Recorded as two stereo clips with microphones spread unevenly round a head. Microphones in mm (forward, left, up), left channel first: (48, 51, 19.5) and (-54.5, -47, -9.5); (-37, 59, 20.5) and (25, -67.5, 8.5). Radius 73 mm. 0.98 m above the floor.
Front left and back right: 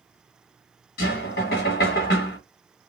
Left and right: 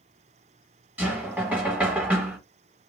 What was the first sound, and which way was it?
Knocking, 15° left.